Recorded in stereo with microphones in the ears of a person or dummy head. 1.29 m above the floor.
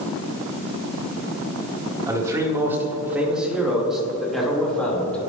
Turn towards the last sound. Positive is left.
turn(degrees=5)  # may be behind; listen again after turning